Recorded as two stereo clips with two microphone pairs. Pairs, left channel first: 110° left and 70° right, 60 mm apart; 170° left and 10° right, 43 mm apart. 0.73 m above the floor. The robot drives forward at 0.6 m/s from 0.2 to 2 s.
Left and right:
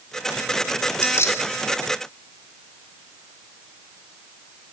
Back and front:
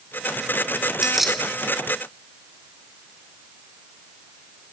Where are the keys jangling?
70° left, 0.9 m; by 1.4 s 90° left, 0.9 m.